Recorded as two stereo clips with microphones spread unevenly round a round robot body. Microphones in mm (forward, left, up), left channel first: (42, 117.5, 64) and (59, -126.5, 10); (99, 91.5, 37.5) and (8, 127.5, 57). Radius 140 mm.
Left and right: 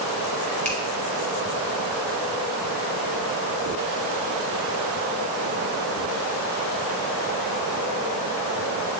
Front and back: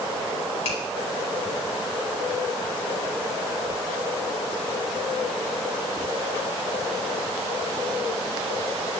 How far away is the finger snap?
About 4 m.